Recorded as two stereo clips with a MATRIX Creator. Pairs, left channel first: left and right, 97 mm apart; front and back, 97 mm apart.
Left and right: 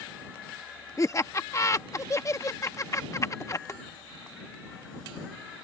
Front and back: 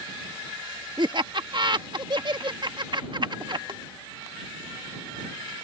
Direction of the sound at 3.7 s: 150° left.